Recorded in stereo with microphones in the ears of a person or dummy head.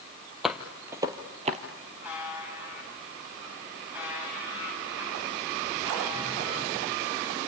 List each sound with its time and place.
0.4 s footsteps: 5° right (ahead or behind), 1.8 m; by 1.6 s 30° right (ahead or behind), 1.7 m
2.0 s a buzzer: 10° right (ahead or behind), 8 m